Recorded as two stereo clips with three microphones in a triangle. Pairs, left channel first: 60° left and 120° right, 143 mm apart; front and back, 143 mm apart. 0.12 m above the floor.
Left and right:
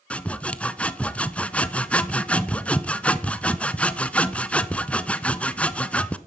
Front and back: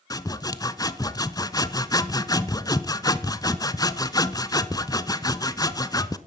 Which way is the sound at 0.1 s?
10° right.